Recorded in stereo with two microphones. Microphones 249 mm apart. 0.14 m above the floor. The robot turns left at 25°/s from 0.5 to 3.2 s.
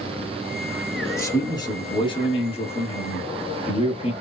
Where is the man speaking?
10° left (ahead or behind), 1.1 m; by 4.1 s 25° left (ahead or behind), 1.1 m.